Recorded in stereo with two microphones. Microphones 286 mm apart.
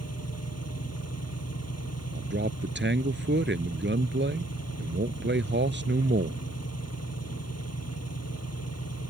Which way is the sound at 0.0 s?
60° left (ahead or behind).